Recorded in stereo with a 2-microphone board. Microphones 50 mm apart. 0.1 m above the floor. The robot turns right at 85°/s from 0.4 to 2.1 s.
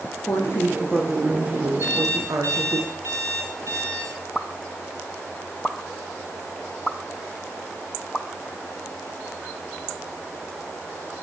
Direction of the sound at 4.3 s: Centre (ahead or behind).